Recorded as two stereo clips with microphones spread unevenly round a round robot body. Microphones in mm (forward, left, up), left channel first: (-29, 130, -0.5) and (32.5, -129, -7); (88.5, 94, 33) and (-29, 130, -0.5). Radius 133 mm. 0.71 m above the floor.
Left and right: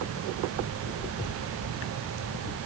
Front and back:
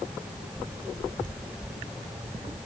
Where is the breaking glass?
I don't hear breaking glass.